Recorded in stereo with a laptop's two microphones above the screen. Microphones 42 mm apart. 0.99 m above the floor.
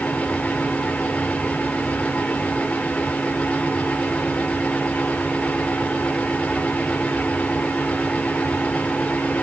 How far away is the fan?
About 2.5 m.